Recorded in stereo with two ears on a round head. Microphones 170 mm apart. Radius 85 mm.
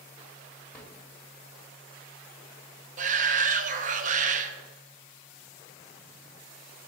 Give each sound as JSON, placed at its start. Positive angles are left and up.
{"t": 0.7, "sound": "a drawer", "side_deg": 5, "distance_m": 1.5}
{"t": 3.0, "sound": "a shout", "side_deg": -40, "distance_m": 0.6}